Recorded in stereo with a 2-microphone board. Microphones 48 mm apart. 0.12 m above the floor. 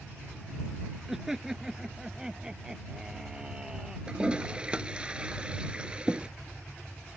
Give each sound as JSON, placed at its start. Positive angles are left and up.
{"t": 1.1, "sound": "laughter", "side_deg": -10}
{"t": 4.1, "sound": "a toilet flushing", "side_deg": -20}